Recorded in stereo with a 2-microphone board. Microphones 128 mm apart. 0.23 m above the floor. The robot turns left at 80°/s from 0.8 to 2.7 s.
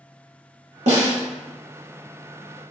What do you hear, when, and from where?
0.9 s a snare drum: 65° right (ahead or behind), 1.5 m; by 1.2 s 50° right (ahead or behind), 1.5 m